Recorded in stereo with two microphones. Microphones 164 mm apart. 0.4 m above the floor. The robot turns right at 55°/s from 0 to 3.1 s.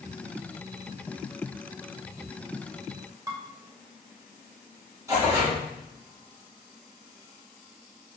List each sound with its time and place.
3.3 s dishes clattering: 20° right (ahead or behind), 0.8 m
5.1 s tearing paper: 20° right (ahead or behind), 1.5 m